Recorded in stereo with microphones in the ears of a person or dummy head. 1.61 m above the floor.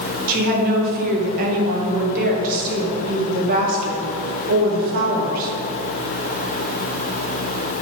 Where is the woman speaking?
45° right (ahead or behind), 2 m.